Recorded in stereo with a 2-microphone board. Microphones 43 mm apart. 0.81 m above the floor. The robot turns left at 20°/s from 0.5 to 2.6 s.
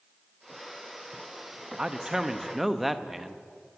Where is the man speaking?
20° right (ahead or behind), 0.6 m; by 3.5 s 5° right (ahead or behind), 0.6 m.